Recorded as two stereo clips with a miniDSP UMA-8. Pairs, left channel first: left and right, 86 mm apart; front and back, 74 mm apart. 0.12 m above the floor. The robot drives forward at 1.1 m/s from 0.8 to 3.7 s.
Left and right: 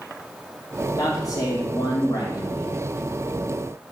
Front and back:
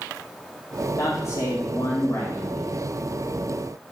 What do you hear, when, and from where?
1.0 s a man speaking: 45° left, 4.5 m; by 2.8 s 70° left, 3.5 m